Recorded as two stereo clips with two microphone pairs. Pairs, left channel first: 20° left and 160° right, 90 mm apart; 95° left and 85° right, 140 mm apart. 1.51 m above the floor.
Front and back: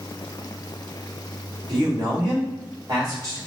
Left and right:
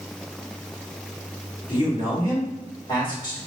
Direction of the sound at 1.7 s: 155° left.